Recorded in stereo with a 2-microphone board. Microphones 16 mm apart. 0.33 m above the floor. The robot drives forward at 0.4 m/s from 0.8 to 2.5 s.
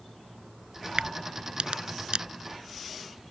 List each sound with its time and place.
1.0 s a crack: 70° right (ahead or behind); by 2.2 s 75° right (ahead or behind)